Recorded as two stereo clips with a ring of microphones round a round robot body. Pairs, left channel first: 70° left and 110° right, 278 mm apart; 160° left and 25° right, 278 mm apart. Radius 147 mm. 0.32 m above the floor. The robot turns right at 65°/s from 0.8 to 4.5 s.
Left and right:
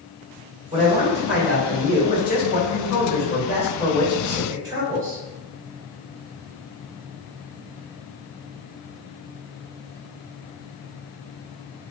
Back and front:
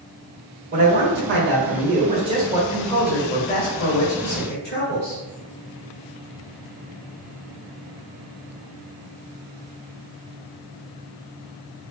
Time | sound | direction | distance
0.7 | a man speaking | 60° right | 1.6 m